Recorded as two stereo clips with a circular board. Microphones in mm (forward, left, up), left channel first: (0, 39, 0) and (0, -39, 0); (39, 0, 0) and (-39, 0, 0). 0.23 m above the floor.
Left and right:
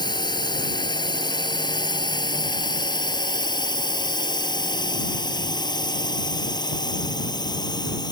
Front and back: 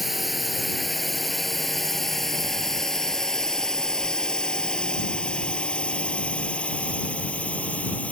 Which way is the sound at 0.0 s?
90° left.